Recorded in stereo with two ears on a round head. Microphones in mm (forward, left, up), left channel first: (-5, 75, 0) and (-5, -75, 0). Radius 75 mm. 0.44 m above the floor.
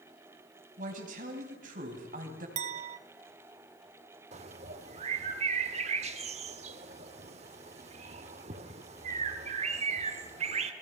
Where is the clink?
40° right (ahead or behind), 0.8 m.